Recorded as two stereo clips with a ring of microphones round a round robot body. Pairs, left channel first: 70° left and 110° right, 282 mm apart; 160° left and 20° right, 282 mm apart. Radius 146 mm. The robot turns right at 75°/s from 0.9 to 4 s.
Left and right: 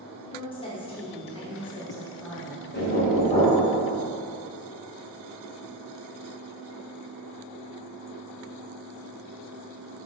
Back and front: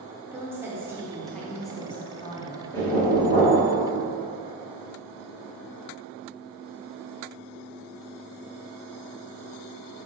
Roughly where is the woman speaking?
Ahead left.